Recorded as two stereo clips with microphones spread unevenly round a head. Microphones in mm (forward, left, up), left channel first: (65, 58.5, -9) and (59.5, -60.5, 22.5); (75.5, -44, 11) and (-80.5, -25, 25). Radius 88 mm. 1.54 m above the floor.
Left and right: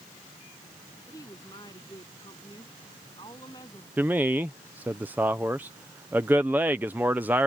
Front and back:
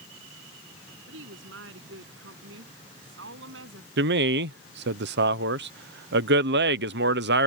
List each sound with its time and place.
1.1 s a woman speaking: 160° left
4.0 s a man speaking: 175° right